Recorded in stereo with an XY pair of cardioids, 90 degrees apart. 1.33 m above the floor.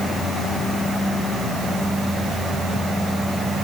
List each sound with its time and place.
Only background noise.